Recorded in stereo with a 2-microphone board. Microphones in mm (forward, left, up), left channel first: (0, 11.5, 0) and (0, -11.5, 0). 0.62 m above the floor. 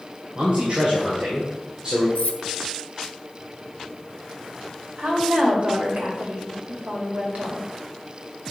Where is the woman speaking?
70° right (ahead or behind), 2.5 m.